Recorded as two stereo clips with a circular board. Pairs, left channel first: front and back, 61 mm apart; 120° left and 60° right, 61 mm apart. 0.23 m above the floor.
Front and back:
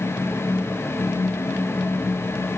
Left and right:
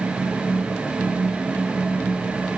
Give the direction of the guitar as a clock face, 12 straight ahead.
I don't hear a guitar.